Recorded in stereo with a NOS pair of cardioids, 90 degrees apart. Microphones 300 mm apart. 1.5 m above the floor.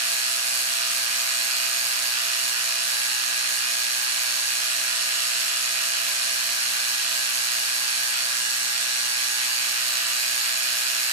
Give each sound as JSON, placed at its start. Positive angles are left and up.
{"t": 0.0, "sound": "a machine running", "azimuth_deg": -60, "distance_m": 1.0}